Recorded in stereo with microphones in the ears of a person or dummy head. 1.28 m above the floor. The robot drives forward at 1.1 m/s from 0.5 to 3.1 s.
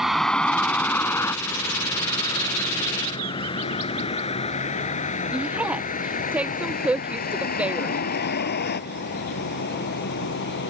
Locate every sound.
0.0 s a vehicle: centre (ahead or behind); by 10.7 s 55° left (ahead or behind)
5.3 s a woman speaking: 5° right (ahead or behind)